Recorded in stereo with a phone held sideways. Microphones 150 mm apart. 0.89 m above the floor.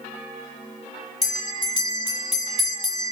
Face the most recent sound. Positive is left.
turn(degrees=40)  # may be behind; listen again after turning